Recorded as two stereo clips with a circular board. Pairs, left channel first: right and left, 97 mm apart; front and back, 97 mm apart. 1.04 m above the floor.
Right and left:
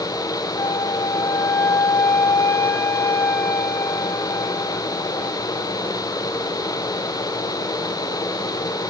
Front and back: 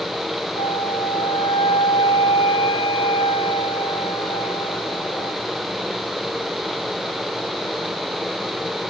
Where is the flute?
25° right, 1.4 m.